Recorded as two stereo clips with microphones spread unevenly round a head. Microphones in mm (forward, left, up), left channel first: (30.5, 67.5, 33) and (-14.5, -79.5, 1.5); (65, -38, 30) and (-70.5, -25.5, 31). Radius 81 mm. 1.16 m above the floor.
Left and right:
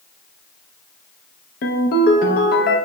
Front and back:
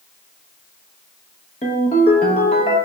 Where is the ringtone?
50° left, 0.6 m.